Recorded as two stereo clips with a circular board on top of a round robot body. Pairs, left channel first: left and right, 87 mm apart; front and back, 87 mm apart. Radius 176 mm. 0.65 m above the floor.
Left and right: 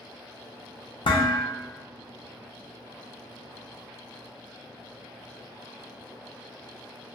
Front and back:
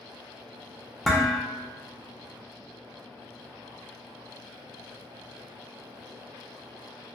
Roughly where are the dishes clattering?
Left.